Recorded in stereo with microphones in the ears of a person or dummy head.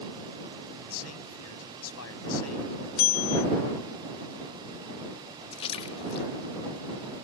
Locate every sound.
0.9 s a man speaking: 80° left
3.0 s a bell: 45° left (ahead or behind)
5.5 s a splash: 30° left (ahead or behind)